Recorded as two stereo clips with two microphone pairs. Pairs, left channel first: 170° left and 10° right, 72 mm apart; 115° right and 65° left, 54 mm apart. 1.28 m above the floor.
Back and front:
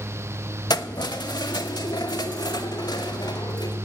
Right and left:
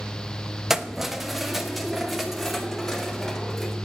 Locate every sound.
0.7 s keys jangling: 150° left, 1.0 m; by 3.8 s 160° left, 3.5 m